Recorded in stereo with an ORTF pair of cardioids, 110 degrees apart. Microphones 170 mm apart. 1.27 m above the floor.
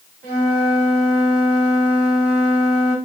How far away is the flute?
About 2 m.